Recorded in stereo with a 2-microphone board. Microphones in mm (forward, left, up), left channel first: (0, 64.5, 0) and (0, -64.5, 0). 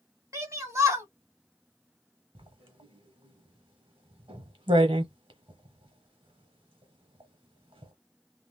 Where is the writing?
40° right (ahead or behind), 1.0 m.